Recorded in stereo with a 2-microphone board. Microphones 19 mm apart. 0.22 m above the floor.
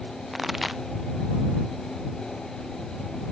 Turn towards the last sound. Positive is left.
turn(degrees=-10)  # may be behind; listen again after turning